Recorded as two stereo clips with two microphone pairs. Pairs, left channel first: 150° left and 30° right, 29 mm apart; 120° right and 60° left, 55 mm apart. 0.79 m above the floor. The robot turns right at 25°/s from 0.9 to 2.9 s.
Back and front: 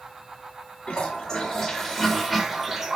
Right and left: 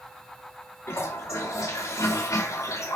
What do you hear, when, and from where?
0.9 s a toilet flushing: 150° right, 2 m; by 3.0 s 100° right, 2 m